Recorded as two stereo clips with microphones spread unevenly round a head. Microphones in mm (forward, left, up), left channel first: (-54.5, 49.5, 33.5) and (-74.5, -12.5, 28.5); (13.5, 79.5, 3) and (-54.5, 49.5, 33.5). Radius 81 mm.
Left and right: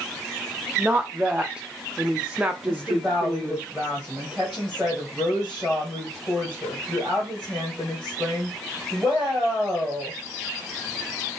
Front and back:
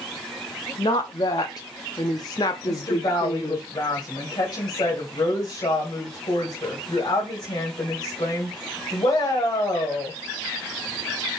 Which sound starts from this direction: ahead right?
A woman speaking, at 0.8 s.